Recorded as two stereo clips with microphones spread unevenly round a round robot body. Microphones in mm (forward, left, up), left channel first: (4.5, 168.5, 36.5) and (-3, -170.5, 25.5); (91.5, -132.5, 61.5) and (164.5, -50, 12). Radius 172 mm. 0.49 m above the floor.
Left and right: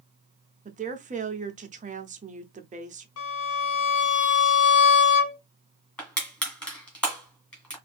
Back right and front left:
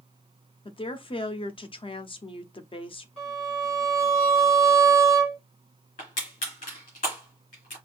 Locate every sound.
0.7 s a woman speaking: 100° right, 0.7 m
3.2 s a violin: 135° left, 1.4 m
6.0 s crushing: 175° left, 2.5 m